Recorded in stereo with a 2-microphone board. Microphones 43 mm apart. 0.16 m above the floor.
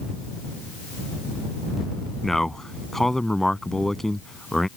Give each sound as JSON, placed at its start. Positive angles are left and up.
{"t": 2.2, "sound": "a man speaking", "side_deg": 10}